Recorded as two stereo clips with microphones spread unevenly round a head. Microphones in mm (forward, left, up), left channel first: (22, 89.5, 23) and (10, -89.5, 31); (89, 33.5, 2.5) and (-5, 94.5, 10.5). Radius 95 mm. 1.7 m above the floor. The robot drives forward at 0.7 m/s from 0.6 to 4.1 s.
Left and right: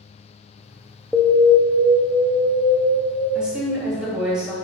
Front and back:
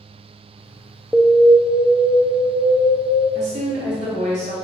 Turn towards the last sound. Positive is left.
turn(degrees=180)